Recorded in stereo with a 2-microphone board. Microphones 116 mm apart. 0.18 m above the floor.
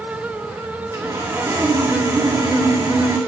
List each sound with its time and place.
0.9 s sawing: 25° right (ahead or behind), 2.5 m